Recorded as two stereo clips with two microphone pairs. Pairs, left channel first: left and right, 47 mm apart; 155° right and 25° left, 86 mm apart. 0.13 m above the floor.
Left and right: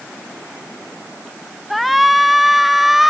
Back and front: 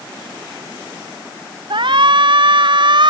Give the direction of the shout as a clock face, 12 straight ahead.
12 o'clock.